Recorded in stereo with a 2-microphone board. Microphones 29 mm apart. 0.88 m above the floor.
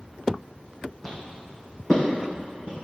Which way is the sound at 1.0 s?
5° left (ahead or behind).